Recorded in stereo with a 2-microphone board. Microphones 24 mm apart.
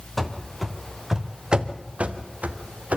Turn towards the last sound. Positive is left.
turn(degrees=-80)